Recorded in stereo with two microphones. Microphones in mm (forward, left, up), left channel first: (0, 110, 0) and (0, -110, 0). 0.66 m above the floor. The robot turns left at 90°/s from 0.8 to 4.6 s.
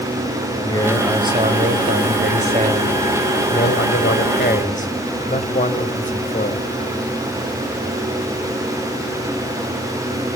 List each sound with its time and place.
0.6 s a man speaking: 20° left, 3.5 m; by 6.7 s 35° left, 3.5 m